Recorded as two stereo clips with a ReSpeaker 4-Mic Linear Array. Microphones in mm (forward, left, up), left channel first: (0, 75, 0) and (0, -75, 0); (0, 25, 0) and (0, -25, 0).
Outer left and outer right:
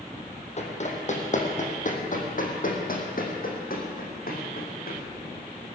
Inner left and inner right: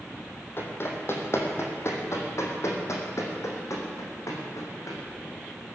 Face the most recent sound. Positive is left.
turn(degrees=75)  # may be behind; listen again after turning